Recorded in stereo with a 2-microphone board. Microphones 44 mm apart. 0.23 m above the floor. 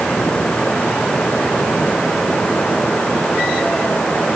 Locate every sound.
Only background noise.